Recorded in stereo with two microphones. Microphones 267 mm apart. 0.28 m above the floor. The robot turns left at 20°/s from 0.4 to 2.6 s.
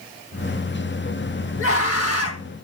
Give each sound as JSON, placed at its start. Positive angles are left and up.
{"t": 1.6, "sound": "a scream", "side_deg": 55, "distance_m": 2.0}